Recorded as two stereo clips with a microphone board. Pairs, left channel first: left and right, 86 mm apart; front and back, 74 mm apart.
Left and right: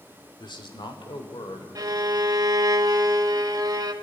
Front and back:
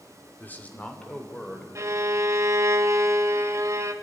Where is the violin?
130° right, 1.2 m.